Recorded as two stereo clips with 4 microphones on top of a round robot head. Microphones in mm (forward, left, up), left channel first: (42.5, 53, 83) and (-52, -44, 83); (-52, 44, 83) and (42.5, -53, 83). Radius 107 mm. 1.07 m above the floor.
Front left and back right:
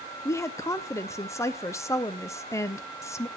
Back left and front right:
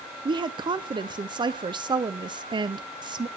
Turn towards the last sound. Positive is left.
turn(degrees=-10)